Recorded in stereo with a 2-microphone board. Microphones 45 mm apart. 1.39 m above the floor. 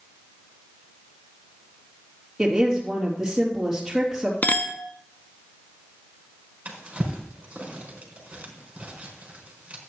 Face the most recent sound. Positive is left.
turn(degrees=-30)  # may be behind; listen again after turning